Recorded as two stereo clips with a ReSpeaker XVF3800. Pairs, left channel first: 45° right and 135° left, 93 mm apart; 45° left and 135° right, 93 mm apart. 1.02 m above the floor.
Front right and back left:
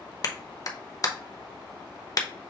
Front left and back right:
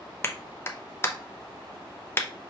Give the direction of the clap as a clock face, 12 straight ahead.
12 o'clock.